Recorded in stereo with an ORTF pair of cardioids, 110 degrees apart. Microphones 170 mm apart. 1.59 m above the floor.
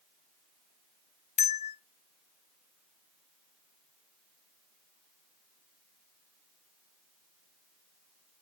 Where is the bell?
40° left, 0.9 m.